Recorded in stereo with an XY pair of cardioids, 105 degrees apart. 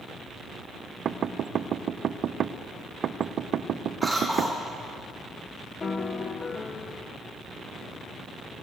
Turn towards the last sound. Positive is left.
turn(degrees=40)